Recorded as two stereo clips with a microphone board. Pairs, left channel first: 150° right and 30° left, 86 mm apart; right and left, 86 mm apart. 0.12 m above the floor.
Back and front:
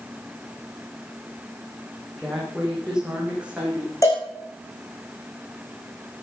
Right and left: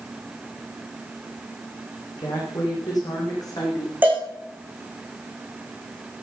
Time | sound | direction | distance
2.2 | a woman speaking | 55° right | 8 m
4.0 | a cowbell | 160° left | 5.5 m